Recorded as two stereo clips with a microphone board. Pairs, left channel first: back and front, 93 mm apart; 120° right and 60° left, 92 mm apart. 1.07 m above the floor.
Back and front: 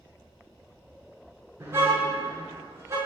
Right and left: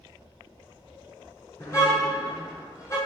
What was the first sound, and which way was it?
A car horn, 60° right.